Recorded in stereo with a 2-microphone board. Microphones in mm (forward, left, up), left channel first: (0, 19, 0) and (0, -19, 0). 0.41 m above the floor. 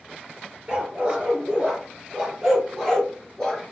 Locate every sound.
0.7 s a dog barking: 25° right (ahead or behind), 3 m; by 3.6 s 10° left (ahead or behind), 1.7 m